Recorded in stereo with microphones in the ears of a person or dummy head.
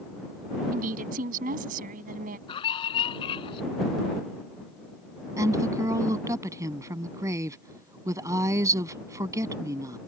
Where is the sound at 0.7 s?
40° right (ahead or behind).